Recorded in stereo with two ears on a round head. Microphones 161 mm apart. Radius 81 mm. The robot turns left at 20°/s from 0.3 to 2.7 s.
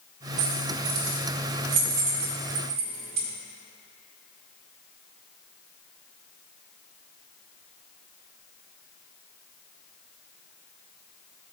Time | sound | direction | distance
0.4 | keys jangling | 80° right | 1.6 m